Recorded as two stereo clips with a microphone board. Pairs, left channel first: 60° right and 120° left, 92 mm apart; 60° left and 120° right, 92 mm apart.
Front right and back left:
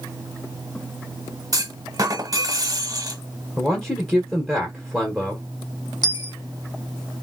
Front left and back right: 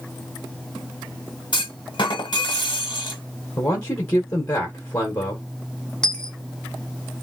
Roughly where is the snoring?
I don't hear snoring.